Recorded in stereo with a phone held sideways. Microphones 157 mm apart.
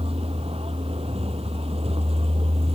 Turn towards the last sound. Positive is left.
turn(degrees=-40)  # may be behind; listen again after turning